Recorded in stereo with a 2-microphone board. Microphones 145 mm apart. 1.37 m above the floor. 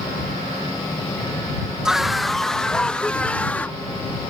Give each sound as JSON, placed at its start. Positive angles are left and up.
{"t": 1.9, "sound": "a scream", "side_deg": -5}